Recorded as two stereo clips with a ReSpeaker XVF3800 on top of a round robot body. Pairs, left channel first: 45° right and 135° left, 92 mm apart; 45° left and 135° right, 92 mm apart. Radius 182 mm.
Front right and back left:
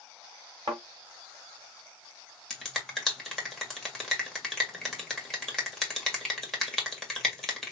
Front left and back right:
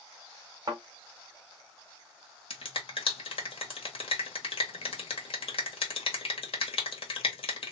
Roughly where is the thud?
Behind.